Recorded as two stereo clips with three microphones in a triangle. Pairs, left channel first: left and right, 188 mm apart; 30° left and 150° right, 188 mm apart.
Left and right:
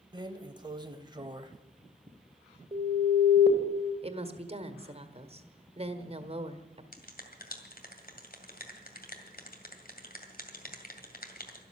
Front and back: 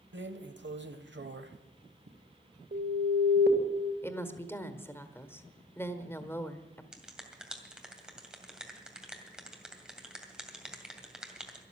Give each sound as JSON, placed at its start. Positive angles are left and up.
{"t": 0.1, "sound": "a drawer", "azimuth_deg": -155, "distance_m": 1.0}
{"t": 2.7, "sound": "an alarm", "azimuth_deg": -145, "distance_m": 2.0}
{"t": 4.0, "sound": "a woman speaking", "azimuth_deg": -45, "distance_m": 1.4}
{"t": 6.9, "sound": "a finger snap", "azimuth_deg": 125, "distance_m": 2.0}